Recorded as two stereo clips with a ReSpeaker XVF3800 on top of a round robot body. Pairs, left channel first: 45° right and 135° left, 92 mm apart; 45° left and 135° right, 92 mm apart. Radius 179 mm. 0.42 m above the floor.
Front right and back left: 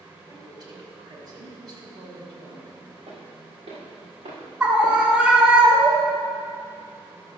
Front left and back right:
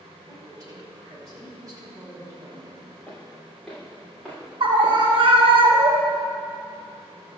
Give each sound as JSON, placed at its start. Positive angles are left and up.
{"t": 0.3, "sound": "a woman speaking", "azimuth_deg": 175, "distance_m": 3.5}
{"t": 3.1, "sound": "footsteps", "azimuth_deg": 125, "distance_m": 4.0}
{"t": 4.6, "sound": "a scream", "azimuth_deg": -145, "distance_m": 2.5}